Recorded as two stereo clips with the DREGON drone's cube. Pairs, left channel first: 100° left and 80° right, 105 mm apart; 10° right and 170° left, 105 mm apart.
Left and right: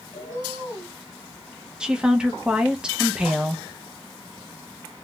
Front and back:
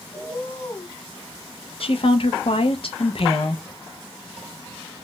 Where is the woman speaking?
Straight ahead, 0.6 m.